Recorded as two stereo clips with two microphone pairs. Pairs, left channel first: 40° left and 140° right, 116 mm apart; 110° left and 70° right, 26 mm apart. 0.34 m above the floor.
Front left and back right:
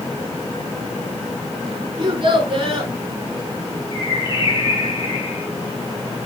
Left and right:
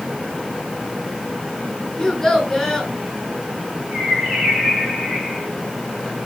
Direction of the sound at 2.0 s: 170° right.